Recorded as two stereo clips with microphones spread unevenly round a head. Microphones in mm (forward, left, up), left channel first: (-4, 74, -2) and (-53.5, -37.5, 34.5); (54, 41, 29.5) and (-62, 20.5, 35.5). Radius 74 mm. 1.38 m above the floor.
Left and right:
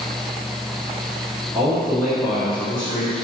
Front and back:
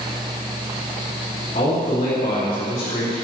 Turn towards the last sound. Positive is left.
turn(degrees=-15)